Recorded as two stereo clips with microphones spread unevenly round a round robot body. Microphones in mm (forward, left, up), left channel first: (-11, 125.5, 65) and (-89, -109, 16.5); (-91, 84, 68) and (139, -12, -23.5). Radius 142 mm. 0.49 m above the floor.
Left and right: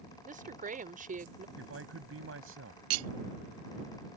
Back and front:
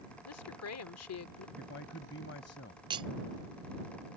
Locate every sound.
0.2 s a woman speaking: 160° right
1.6 s a man speaking: 145° right
2.9 s cutlery clinking: 90° right